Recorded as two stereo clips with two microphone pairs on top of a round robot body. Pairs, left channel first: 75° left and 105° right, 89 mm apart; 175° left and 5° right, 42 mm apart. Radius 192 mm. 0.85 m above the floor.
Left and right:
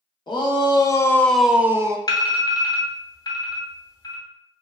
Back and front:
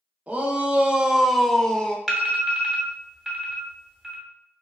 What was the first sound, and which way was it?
A shout, 50° left.